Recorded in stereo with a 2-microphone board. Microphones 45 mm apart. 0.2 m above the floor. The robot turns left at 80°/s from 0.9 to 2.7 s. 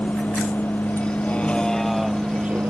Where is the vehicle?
40° left (ahead or behind); by 2.7 s 45° right (ahead or behind).